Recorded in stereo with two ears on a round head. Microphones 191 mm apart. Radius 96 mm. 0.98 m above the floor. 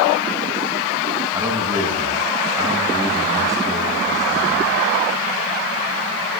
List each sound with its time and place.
1.3 s a man speaking: 15° right (ahead or behind), 9 m